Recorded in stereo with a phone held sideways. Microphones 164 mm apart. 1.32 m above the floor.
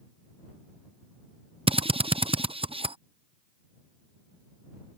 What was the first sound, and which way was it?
A drill, 35° right (ahead or behind).